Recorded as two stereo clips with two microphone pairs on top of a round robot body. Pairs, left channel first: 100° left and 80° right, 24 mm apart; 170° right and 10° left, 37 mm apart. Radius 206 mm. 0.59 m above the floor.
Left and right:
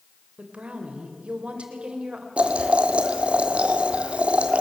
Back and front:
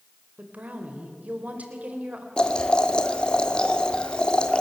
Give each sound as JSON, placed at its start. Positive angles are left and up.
{"t": 0.4, "sound": "a woman speaking", "azimuth_deg": -35, "distance_m": 3.5}
{"t": 2.4, "sound": "boiling", "azimuth_deg": -105, "distance_m": 2.0}